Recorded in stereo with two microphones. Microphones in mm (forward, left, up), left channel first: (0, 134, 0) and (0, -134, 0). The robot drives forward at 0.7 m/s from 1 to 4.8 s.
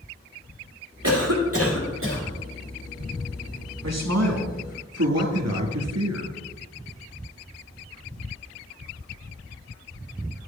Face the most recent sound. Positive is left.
turn(degrees=-65)  # may be behind; listen again after turning